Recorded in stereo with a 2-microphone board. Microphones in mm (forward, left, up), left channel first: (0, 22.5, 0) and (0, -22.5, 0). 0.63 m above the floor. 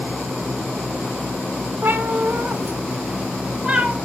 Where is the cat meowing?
55° right (ahead or behind), 1.1 m; by 4.0 s 20° right (ahead or behind), 1.9 m.